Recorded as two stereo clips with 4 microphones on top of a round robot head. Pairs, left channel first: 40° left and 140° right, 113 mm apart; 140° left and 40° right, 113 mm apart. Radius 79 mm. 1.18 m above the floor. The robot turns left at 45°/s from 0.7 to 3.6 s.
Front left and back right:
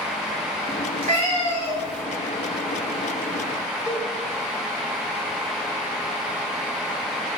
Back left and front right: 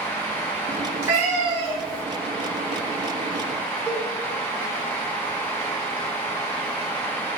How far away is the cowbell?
About 0.6 m.